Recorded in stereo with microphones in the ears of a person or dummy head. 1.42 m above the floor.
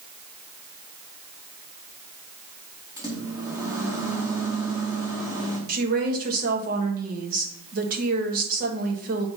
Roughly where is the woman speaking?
Right.